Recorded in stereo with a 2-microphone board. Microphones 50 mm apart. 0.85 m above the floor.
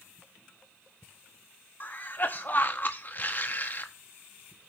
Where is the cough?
40° left (ahead or behind), 1.0 m.